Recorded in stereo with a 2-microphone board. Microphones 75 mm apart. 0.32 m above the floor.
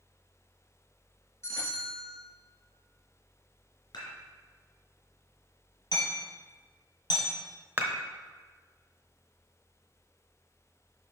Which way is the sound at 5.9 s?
65° left (ahead or behind).